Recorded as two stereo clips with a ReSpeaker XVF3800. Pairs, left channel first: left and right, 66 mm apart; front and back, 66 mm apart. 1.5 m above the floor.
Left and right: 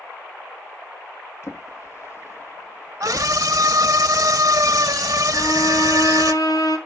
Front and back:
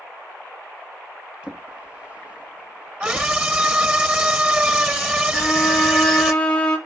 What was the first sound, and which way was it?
A drawer, 115° left.